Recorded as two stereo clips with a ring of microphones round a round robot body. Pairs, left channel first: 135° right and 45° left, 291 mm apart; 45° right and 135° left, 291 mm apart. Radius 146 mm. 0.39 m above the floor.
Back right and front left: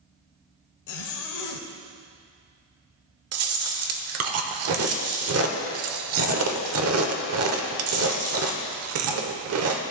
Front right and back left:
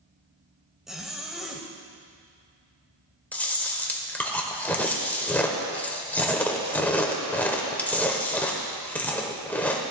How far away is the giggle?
No giggle in this recording.